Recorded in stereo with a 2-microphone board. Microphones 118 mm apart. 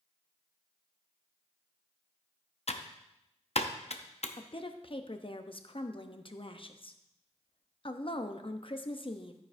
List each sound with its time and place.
2.7 s typing on a keyboard: 60° left (ahead or behind), 0.7 m
4.4 s a woman speaking: 50° left (ahead or behind), 0.8 m